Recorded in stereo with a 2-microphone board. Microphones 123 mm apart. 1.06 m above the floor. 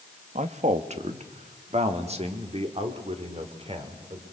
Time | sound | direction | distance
0.3 | a man speaking | 70° right (ahead or behind) | 1.3 m